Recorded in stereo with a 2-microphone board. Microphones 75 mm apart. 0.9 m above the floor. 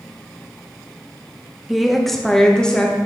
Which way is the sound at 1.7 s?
Centre (ahead or behind).